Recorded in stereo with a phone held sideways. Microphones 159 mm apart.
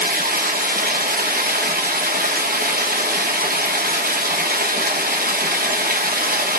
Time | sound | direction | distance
0.0 | running water | 65° right (ahead or behind) | 1.0 m